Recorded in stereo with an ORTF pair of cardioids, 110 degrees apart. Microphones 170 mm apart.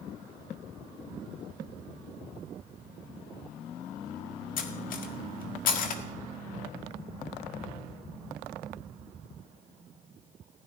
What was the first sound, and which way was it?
Cutlery clinking, 55° left.